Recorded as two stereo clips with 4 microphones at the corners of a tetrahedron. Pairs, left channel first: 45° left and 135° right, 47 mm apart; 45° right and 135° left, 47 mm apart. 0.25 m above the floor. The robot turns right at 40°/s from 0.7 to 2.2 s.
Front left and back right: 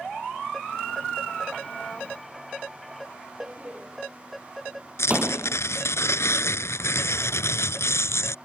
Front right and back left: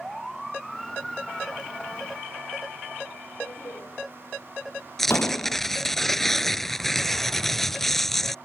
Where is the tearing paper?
40° left.